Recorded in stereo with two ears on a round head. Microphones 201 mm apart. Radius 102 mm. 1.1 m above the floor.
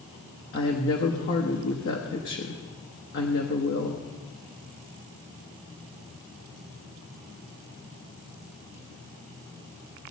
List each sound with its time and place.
0.5 s a woman speaking: 55° left (ahead or behind), 1.1 m